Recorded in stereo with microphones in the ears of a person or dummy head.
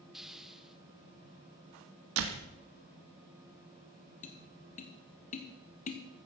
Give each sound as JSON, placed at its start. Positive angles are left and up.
{"t": 0.1, "sound": "a hiss", "side_deg": -5, "distance_m": 0.6}
{"t": 2.2, "sound": "a door slam", "side_deg": -75, "distance_m": 2.0}
{"t": 4.2, "sound": "tapping", "side_deg": 30, "distance_m": 1.6}